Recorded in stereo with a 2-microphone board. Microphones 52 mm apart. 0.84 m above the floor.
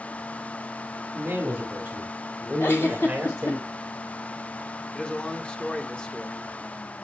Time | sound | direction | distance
1.1 | a man speaking | 30° right (ahead or behind) | 1.9 m
2.6 | a giggle | 50° left (ahead or behind) | 2 m
4.9 | a man speaking | 20° left (ahead or behind) | 1.1 m